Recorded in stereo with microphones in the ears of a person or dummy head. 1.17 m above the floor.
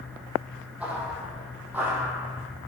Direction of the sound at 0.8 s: 5° right (ahead or behind).